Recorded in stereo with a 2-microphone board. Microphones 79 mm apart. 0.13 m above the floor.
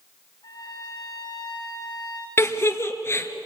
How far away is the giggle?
About 1.5 m.